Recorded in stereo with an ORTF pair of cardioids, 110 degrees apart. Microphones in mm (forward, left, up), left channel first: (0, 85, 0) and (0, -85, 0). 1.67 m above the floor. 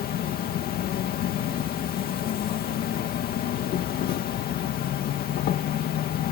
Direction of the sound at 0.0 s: 65° left.